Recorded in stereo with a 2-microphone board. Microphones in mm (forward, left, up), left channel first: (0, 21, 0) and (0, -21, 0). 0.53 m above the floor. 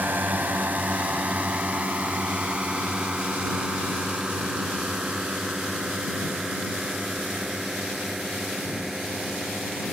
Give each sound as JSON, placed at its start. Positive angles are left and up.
{"t": 0.0, "sound": "a drone", "side_deg": -45}